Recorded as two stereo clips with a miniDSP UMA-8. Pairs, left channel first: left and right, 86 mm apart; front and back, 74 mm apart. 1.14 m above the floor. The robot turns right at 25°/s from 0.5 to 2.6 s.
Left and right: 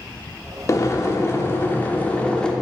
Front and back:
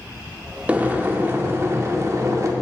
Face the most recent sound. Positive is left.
turn(degrees=165)